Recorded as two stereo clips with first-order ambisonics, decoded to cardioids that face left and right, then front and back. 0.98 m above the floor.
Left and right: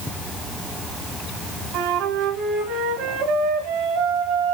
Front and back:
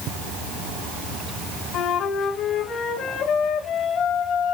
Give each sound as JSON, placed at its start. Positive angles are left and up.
{"t": 1.7, "sound": "a flute", "azimuth_deg": -60, "distance_m": 3.0}